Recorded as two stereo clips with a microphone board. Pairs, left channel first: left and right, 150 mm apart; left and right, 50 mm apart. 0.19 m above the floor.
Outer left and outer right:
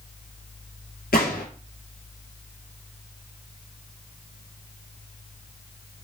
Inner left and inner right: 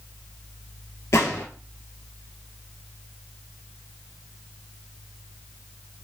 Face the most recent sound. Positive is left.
turn(degrees=80)